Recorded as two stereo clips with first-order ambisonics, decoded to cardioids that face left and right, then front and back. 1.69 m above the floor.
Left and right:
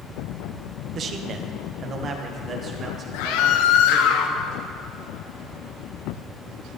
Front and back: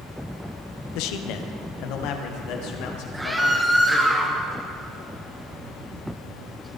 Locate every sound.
0.9 s a man speaking: 30° right, 1.1 m; by 4.1 s 25° right, 3.5 m
3.1 s a scream: 95° left, 1.0 m